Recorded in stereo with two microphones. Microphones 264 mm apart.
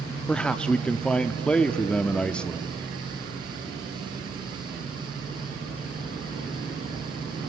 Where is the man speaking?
5° left (ahead or behind), 0.7 m.